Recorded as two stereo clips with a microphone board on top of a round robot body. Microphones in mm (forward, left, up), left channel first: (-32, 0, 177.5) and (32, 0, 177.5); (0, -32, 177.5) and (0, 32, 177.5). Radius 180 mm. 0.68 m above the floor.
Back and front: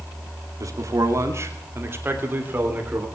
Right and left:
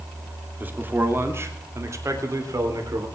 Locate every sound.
0.6 s a man speaking: 30° left, 2.5 m; by 3.1 s 65° left, 3.5 m